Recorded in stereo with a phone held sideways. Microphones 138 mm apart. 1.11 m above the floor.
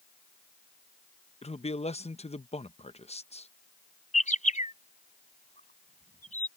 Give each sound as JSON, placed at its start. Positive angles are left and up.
{"t": 1.4, "sound": "a man speaking", "side_deg": 50}
{"t": 4.1, "sound": "a bird", "side_deg": 65}